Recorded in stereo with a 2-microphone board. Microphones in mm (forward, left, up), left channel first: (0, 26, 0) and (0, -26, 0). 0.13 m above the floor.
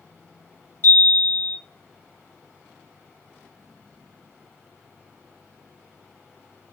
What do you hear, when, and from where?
0.8 s a chime: 50° left (ahead or behind), 1.7 m